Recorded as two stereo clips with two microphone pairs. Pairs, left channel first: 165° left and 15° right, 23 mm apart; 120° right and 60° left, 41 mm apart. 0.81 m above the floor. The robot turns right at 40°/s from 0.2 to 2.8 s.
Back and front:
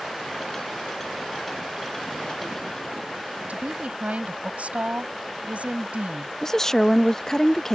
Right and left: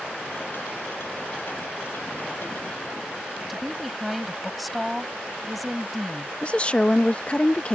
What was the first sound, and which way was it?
A woman speaking, 30° right.